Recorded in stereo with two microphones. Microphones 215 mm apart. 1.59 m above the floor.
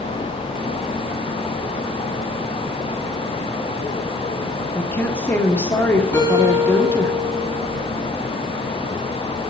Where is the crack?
No crack in this recording.